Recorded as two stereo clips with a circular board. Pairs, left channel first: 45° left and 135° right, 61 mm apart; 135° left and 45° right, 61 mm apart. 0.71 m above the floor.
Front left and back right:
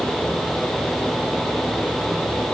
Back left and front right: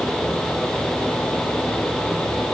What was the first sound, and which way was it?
Only background noise.